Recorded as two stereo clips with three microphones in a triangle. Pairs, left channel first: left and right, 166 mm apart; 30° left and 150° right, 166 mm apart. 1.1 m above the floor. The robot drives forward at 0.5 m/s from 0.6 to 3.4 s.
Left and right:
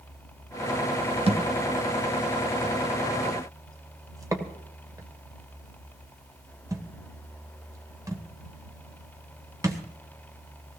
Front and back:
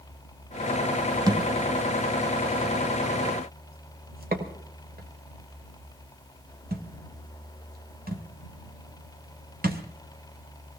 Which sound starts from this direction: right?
A thud, at 1.3 s.